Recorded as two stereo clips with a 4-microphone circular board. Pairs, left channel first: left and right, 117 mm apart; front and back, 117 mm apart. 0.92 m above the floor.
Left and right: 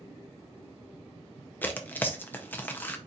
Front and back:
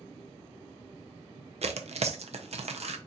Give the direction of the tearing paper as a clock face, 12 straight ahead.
7 o'clock.